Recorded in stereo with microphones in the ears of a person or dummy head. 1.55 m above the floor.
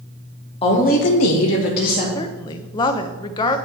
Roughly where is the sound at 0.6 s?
Left.